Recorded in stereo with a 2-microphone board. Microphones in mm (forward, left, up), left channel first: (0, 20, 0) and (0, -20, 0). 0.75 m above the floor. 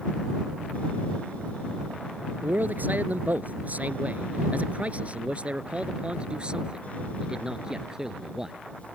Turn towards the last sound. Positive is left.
turn(degrees=-10)  # may be behind; listen again after turning